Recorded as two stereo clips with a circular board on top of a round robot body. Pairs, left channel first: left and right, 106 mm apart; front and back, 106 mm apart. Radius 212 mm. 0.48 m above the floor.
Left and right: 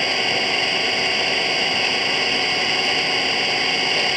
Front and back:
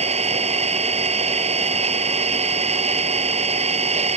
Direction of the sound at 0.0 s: Straight behind.